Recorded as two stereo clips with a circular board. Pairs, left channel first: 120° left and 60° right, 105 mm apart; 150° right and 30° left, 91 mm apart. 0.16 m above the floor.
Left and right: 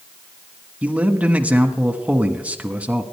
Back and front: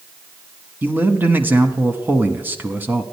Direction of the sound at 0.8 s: Straight ahead.